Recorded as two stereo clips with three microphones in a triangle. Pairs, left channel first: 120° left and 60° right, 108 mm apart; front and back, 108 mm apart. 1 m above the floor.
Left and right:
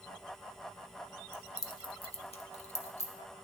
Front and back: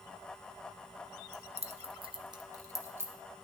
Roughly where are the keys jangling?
Behind.